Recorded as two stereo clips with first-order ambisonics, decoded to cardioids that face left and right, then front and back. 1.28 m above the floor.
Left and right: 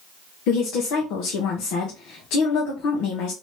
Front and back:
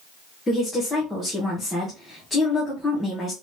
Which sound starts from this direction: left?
A woman speaking, at 0.5 s.